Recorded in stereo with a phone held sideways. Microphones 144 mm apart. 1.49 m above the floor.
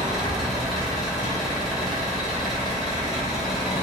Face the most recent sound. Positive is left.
turn(degrees=0)  # may be behind; listen again after turning